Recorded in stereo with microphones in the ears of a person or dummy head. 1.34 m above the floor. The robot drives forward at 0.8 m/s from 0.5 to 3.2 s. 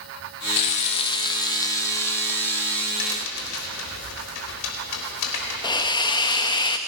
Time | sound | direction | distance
0.6 | frying | 30° left (ahead or behind) | 0.6 m
3.0 | a crack | 80° left | 3.5 m
5.6 | a hiss | 25° left (ahead or behind) | 1.2 m